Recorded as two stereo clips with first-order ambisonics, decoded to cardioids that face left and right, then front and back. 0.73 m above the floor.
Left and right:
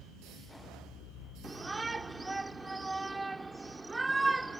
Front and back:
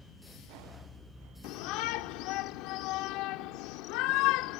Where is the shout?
10° right.